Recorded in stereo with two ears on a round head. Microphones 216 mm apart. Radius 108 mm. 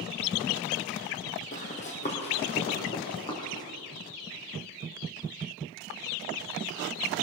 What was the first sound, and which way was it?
Running footsteps, 35° left (ahead or behind).